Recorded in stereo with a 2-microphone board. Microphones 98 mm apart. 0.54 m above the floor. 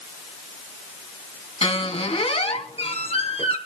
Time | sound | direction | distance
1.6 | a squeak | 80° left | 2 m